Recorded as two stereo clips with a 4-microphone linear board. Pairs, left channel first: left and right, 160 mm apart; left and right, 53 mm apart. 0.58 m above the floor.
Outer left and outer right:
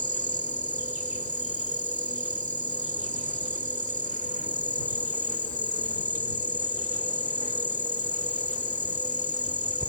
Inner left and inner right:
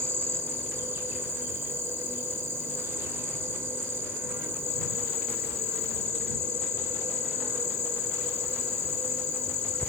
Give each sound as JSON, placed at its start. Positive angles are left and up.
{"t": 0.0, "sound": "an insect", "side_deg": -50}